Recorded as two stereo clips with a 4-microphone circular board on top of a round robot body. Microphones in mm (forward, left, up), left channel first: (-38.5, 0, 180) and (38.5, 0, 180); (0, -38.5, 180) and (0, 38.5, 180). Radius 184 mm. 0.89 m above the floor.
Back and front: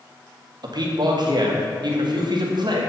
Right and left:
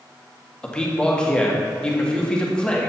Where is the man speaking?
10° right, 1.8 m.